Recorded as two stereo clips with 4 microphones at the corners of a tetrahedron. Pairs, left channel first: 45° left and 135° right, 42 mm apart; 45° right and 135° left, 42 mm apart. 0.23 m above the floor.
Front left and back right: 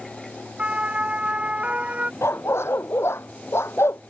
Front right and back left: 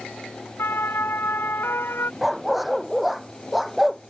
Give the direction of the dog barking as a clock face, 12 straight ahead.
10 o'clock.